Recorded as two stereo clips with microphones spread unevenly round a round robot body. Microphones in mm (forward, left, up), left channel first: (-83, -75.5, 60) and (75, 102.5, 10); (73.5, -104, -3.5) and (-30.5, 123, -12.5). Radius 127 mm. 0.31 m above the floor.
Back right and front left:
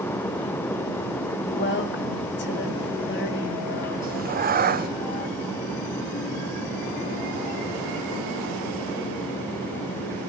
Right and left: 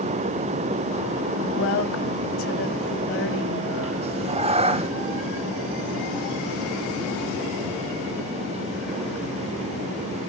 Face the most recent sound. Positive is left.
turn(degrees=60)